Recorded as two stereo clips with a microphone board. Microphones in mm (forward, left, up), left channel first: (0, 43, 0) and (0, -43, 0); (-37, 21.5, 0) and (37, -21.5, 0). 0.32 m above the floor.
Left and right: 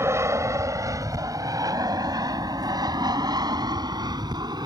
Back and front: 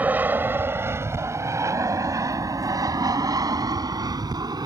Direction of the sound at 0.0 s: 80° right.